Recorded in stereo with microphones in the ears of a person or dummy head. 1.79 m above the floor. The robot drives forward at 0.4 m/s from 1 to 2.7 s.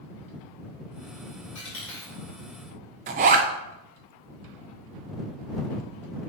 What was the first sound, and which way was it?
A dropped coin, 5° left (ahead or behind).